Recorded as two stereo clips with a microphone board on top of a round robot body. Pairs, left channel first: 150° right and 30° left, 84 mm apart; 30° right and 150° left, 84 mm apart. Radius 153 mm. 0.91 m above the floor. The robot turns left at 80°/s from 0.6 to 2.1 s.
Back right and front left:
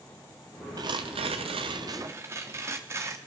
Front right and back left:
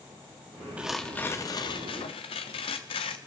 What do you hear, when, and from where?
0.8 s tearing paper: 75° left, 0.6 m; by 3.2 s 30° right, 0.6 m